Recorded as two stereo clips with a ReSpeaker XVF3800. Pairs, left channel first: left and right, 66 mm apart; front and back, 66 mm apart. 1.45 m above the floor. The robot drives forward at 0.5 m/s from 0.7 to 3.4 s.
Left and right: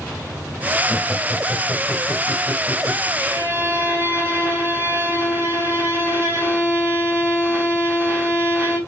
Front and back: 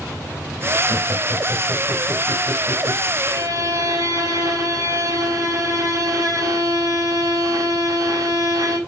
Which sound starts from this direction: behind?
Laughter, at 0.9 s.